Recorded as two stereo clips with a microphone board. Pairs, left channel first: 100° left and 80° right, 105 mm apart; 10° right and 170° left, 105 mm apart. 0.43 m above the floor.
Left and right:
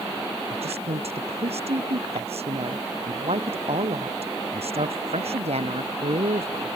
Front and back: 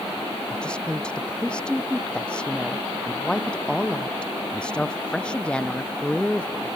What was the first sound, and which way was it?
A woman speaking, 90° right.